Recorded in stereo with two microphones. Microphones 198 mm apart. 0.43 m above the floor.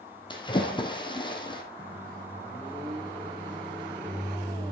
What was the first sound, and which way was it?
A splash, 25° left (ahead or behind).